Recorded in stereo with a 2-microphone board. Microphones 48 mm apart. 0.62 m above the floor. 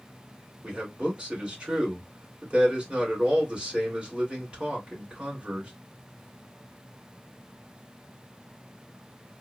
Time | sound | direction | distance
0.6 | a man speaking | 20° right (ahead or behind) | 2.5 m